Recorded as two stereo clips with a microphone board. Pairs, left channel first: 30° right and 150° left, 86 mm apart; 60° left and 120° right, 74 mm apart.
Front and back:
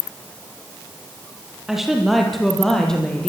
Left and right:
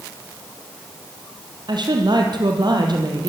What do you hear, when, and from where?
1.7 s a woman speaking: 125° right, 5.5 m; by 3.3 s 110° right, 6.5 m